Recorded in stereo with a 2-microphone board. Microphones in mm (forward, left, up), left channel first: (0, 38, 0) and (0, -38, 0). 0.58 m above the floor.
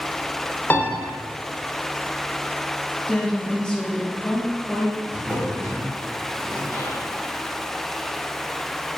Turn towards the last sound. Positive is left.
turn(degrees=35)  # may be behind; listen again after turning